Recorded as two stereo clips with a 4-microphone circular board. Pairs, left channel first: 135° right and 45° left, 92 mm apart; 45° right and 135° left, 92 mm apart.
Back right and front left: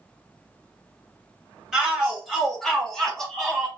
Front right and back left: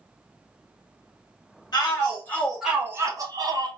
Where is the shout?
45° right, 1.0 m; by 3.7 s 140° left, 1.2 m.